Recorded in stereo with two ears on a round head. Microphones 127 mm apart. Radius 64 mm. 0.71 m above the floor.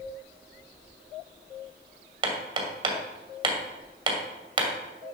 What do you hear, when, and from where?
2.2 s hammering: 35° right (ahead or behind), 2 m